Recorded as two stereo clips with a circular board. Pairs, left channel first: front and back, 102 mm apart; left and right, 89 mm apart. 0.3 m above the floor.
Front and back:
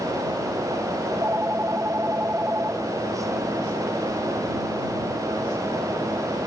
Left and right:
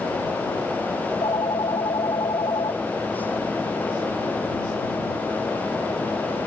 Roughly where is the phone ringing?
Behind left.